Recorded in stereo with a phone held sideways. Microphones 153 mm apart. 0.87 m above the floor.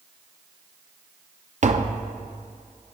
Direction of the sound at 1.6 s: 50° right (ahead or behind).